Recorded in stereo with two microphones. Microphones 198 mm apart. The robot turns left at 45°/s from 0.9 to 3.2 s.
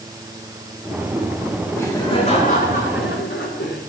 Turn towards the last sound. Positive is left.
turn(degrees=100)